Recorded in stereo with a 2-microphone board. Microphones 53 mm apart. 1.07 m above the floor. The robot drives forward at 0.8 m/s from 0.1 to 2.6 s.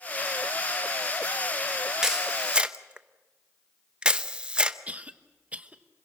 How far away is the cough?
About 1.2 m.